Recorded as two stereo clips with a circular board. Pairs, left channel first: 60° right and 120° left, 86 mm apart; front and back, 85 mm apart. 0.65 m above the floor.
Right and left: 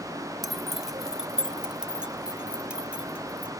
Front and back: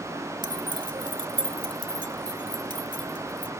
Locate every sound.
0.4 s keys jangling: 155° right; by 3.5 s 165° right